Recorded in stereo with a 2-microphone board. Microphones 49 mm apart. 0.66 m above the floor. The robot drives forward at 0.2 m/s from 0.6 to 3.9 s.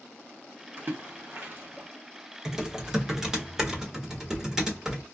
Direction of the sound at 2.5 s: 10° right (ahead or behind).